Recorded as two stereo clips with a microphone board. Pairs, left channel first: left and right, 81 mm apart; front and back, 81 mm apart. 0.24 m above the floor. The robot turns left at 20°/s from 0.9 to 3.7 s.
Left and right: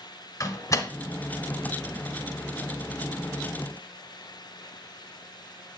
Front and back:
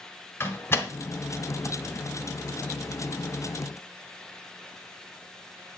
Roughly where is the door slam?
Ahead left.